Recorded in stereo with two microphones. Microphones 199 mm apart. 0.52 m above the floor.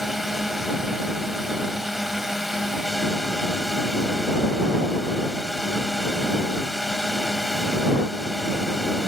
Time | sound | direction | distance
0.0 | a drone | centre (ahead or behind) | ?